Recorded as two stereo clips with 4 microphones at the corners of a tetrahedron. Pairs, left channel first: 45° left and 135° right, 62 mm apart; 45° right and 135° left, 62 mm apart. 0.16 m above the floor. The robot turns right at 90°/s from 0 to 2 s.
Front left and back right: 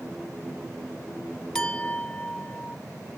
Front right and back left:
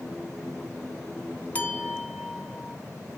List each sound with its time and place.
1.6 s a clink: 20° right, 0.7 m; by 2.8 s 20° left, 0.7 m